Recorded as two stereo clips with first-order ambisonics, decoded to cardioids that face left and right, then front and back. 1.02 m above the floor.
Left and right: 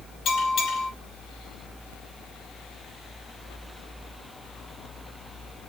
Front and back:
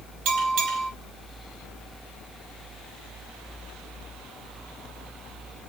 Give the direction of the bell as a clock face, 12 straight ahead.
7 o'clock.